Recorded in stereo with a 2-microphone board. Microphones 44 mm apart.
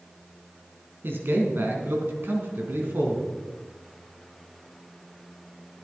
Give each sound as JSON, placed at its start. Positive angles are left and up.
{"t": 1.0, "sound": "a man speaking", "side_deg": -55, "distance_m": 3.0}